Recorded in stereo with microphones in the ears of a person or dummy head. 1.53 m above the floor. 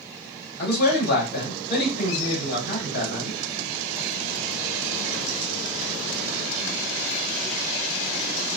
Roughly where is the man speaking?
Left.